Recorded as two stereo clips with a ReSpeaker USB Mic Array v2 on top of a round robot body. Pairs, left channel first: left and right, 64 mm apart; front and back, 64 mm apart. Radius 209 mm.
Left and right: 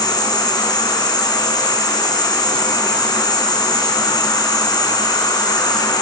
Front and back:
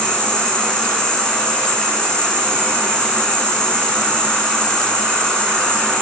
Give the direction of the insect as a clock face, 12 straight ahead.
9 o'clock.